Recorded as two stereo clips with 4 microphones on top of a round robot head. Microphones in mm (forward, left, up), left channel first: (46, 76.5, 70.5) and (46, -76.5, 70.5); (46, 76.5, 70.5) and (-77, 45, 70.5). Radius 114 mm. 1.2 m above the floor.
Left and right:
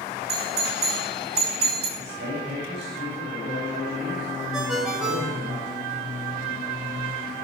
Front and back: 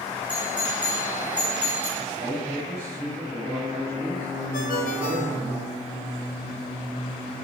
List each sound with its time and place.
0.3 s a doorbell: 85° right, 6.5 m
2.0 s a man speaking: 115° right, 7 m
4.5 s a ringtone: 5° right, 4.5 m